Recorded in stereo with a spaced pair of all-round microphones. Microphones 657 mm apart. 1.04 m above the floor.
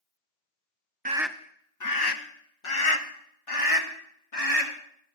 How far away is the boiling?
I don't hear boiling.